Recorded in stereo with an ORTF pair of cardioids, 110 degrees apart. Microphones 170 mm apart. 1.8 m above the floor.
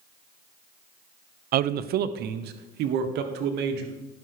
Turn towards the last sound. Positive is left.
turn(degrees=-75)